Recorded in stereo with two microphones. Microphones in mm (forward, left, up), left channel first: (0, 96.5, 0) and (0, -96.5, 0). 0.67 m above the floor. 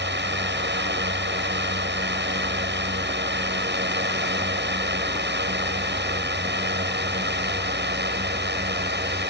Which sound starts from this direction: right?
A drone, at 0.0 s.